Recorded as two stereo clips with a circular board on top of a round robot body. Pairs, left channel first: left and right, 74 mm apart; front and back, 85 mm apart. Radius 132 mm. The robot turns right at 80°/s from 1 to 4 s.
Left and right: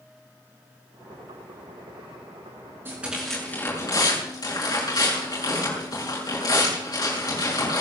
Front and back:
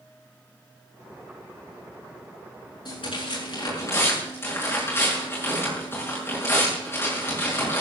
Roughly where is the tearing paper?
Ahead right.